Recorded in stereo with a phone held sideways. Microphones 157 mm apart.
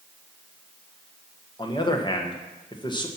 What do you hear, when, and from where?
1.6 s a man speaking: 30° left (ahead or behind), 1.3 m